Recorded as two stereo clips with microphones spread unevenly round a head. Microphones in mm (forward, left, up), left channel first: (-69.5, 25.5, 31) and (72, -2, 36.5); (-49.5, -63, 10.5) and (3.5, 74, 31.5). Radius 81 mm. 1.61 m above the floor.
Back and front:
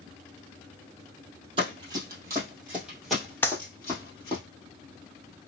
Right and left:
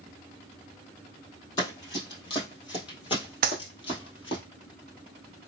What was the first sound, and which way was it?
Running footsteps, 45° right.